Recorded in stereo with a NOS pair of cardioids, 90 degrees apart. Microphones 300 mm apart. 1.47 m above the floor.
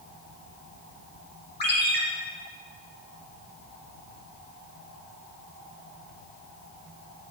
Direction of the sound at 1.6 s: 35° left.